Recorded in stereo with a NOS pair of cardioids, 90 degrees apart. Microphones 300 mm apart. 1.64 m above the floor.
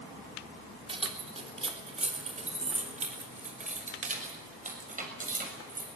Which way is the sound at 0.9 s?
20° right.